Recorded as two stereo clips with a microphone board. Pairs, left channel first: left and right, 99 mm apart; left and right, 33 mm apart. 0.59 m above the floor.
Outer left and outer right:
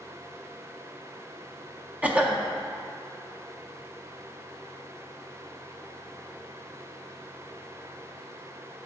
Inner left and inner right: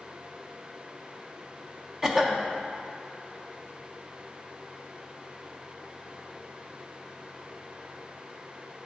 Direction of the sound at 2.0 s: 15° right (ahead or behind).